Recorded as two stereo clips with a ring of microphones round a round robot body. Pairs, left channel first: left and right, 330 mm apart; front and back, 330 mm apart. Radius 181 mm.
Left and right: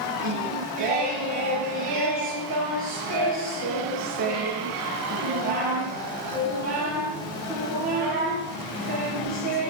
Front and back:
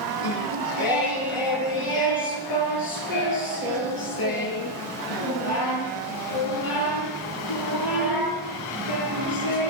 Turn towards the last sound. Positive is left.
turn(degrees=-20)